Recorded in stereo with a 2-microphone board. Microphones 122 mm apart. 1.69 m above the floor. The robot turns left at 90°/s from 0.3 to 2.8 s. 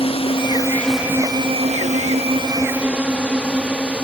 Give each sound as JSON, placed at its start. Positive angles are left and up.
{"t": 0.0, "sound": "a drone", "side_deg": 50}